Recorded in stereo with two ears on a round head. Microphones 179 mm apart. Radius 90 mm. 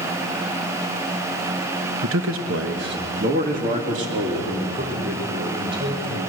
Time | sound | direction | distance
2.0 | a man speaking | 75° right (ahead or behind) | 1.3 m